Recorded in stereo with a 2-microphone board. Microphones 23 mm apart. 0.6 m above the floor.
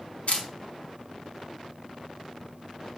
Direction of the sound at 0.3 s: 85° left.